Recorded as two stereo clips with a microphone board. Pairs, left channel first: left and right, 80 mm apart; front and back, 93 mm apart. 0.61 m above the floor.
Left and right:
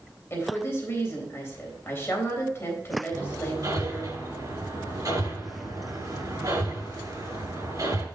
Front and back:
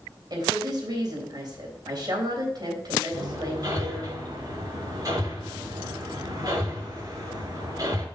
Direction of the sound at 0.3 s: 145° left.